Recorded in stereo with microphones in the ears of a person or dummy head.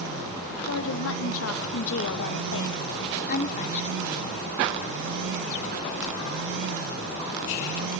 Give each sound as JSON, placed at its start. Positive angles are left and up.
{"t": 0.6, "sound": "a woman speaking", "side_deg": 80, "distance_m": 2.5}